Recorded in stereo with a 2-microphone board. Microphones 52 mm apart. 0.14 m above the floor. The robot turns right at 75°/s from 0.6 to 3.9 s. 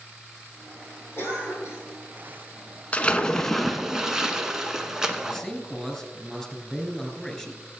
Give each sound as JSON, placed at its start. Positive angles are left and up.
{"t": 1.2, "sound": "a cough", "azimuth_deg": 55, "distance_m": 5.5}
{"t": 2.9, "sound": "a splash", "azimuth_deg": 125, "distance_m": 0.8}
{"t": 5.2, "sound": "a man speaking", "side_deg": 5, "distance_m": 1.9}